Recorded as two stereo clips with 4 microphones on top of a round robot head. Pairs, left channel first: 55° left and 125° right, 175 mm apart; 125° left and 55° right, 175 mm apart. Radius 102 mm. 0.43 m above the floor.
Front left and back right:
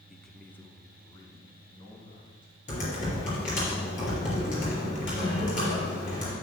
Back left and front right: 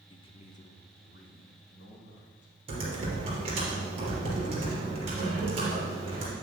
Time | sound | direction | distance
0.1 | a man speaking | 145° left | 0.8 m
2.7 | typing on a keyboard | 5° left | 3 m